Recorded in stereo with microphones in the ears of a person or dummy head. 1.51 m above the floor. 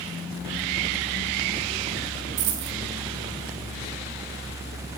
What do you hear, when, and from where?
2.4 s a dropped coin: 55° right (ahead or behind), 1.3 m